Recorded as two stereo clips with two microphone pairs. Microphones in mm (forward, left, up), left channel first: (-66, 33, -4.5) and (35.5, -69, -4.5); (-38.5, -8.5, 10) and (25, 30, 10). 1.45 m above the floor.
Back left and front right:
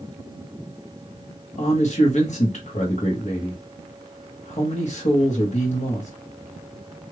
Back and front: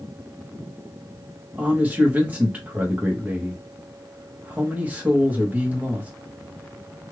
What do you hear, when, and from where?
1.6 s a man speaking: 100° left, 1.3 m